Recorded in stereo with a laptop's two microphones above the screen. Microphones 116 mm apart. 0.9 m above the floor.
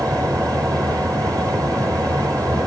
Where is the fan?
30° right (ahead or behind), 5 m.